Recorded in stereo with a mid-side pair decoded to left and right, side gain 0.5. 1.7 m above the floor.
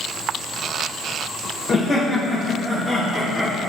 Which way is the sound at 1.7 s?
40° left.